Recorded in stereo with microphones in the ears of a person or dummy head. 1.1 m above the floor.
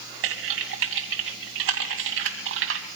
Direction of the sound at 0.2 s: 75° right (ahead or behind).